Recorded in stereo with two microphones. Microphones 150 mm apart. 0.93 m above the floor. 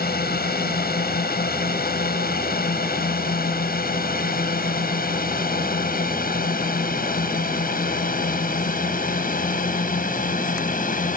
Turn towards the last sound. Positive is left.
turn(degrees=60)  # may be behind; listen again after turning